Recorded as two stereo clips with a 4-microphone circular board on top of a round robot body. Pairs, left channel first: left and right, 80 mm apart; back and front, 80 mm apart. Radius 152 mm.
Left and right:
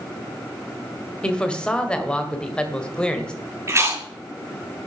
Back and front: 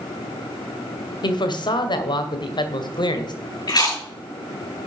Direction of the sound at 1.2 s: 170° left.